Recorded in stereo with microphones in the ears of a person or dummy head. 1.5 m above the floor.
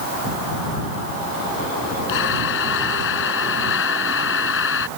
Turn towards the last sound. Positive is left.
turn(degrees=65)  # may be behind; listen again after turning